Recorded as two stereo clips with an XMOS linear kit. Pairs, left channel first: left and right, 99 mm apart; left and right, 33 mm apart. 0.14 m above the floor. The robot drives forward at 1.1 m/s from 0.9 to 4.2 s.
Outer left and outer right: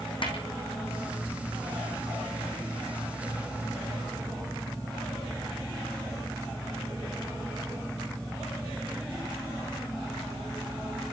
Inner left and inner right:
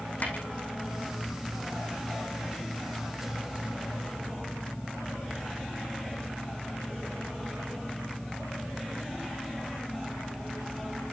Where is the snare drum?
60° left (ahead or behind), 5.5 m.